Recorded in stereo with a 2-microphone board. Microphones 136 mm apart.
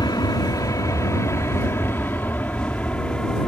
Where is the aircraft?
30° left (ahead or behind); by 3.5 s 5° left (ahead or behind).